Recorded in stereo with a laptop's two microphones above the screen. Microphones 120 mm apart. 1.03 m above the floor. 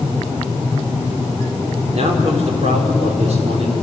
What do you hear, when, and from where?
1.9 s a man speaking: 65° right (ahead or behind), 3.5 m